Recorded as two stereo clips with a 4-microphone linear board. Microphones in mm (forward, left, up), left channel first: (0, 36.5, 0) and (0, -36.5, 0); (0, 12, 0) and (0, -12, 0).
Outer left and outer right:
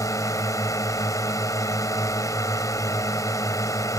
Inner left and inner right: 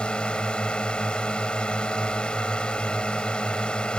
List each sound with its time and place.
0.0 s a drone: 50° left (ahead or behind)